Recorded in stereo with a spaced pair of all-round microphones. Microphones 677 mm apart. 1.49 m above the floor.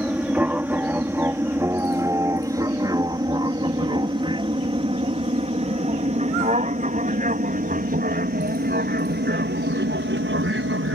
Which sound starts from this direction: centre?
An aircraft, at 0.0 s.